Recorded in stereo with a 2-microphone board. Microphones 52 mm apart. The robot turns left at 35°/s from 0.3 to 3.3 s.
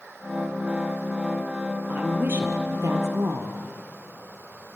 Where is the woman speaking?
40° right, 4 m; by 3.6 s 85° right, 4 m.